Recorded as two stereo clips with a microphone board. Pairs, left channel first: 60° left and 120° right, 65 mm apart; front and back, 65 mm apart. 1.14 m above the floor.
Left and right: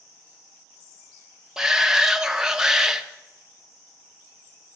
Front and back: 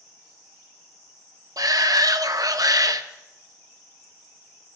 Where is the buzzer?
No buzzer in this recording.